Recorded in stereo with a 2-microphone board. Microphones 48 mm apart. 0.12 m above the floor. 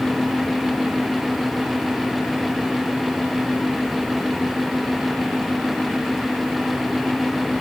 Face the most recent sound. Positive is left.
No sound to turn to.